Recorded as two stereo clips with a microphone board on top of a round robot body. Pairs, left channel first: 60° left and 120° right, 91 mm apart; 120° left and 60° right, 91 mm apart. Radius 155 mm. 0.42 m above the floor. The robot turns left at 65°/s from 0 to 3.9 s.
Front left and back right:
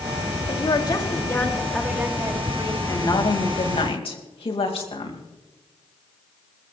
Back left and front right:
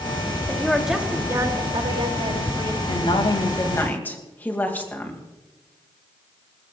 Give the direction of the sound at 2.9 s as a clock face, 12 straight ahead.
8 o'clock.